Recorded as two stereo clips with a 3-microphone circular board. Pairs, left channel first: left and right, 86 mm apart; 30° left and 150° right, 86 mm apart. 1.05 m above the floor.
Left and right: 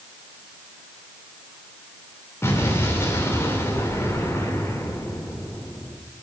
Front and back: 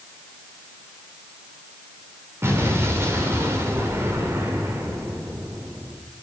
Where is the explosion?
150° left, 2.5 m.